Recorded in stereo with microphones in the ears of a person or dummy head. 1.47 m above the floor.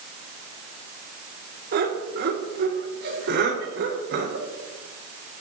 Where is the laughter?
50° right (ahead or behind), 4 m; by 4.5 s 55° right (ahead or behind), 5.5 m.